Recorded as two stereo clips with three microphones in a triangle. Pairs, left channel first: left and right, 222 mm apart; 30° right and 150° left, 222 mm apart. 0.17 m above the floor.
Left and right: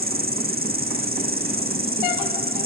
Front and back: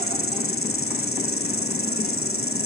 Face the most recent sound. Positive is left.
turn(degrees=-40)